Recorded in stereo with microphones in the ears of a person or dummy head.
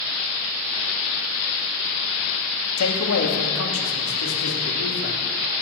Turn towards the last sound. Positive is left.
turn(degrees=70)  # may be behind; listen again after turning